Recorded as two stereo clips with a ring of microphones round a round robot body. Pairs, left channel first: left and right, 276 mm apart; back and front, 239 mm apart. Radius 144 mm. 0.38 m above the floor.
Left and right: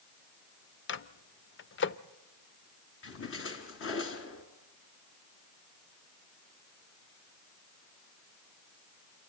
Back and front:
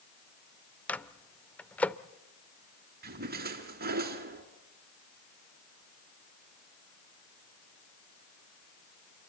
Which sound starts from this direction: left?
A microwave, at 0.9 s.